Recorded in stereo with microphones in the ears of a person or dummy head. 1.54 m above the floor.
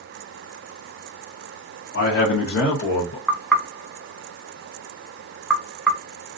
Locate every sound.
1.9 s a man speaking: 85° left, 0.9 m; by 3.2 s 55° left (ahead or behind), 1.1 m
3.3 s knocking: 5° right (ahead or behind), 0.5 m